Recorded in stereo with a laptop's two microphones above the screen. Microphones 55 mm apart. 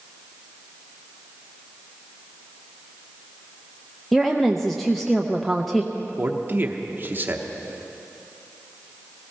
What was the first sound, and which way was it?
A woman speaking, 5° left (ahead or behind).